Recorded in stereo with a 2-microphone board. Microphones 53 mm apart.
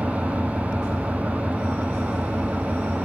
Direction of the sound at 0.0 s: 25° right (ahead or behind).